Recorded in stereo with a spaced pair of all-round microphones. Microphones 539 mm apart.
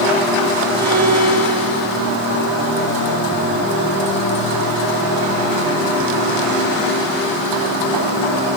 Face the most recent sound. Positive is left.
turn(degrees=-40)  # may be behind; listen again after turning